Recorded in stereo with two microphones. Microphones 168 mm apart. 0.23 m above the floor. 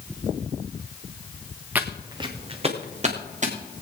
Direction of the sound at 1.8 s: 10° right (ahead or behind).